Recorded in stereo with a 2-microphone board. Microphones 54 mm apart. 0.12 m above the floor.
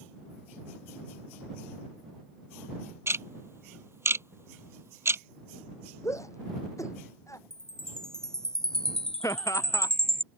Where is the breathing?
No breathing in this recording.